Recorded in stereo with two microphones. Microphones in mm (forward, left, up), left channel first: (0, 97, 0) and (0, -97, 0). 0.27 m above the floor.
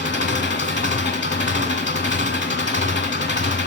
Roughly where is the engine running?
Left.